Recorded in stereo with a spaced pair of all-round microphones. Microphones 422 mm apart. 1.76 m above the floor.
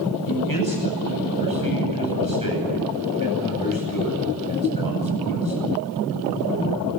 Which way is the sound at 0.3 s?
55° left (ahead or behind).